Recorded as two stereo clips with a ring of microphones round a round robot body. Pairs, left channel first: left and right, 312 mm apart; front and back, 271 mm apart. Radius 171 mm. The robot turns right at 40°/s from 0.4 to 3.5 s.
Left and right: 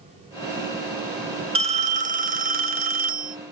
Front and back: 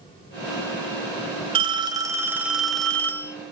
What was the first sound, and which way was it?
A phone ringing, 140° right.